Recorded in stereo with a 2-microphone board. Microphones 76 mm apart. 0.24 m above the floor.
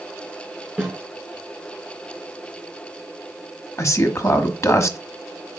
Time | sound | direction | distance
0.8 | a snare drum | 10° right (ahead or behind) | 4 m
3.8 | a man speaking | 40° left (ahead or behind) | 1.2 m